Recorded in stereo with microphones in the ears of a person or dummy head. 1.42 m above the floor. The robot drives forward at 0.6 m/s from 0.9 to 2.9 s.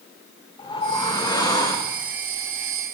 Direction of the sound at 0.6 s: 25° left (ahead or behind).